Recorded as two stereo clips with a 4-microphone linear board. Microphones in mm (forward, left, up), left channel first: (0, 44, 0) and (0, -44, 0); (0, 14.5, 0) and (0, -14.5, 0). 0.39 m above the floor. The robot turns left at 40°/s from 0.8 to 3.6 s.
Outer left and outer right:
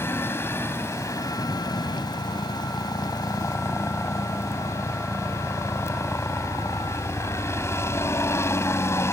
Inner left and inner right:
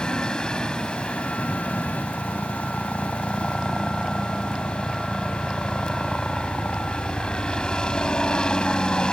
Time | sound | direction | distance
0.0 | a helicopter | 150° left | ?